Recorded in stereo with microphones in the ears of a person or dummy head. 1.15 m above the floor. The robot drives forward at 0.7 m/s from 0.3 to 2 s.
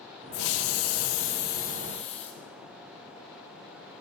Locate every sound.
0.3 s a hiss: 55° left (ahead or behind), 0.8 m; by 2.4 s 40° left (ahead or behind), 1.0 m